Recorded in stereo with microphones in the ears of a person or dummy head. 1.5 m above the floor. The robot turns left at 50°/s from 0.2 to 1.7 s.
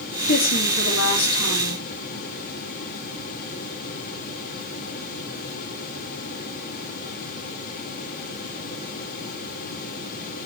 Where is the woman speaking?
135° left, 2.5 m; by 1.8 s 60° left, 2.5 m.